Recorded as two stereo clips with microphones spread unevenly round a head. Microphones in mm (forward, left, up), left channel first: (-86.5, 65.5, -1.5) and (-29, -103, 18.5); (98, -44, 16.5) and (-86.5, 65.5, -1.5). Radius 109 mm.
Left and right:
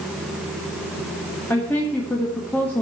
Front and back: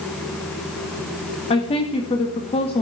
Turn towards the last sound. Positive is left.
turn(degrees=35)